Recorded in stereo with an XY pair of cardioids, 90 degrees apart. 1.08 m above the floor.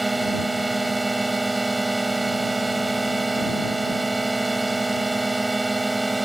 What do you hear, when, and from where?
0.0 s a drone: 15° right